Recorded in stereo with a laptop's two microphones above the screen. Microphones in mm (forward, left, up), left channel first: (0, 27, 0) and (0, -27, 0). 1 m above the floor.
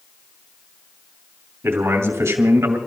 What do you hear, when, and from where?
1.6 s a man speaking: 50° right (ahead or behind), 2.5 m; by 2.8 s 60° right (ahead or behind), 2 m